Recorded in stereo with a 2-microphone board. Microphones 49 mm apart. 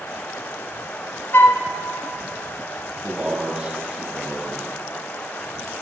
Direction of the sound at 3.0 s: 20° right (ahead or behind).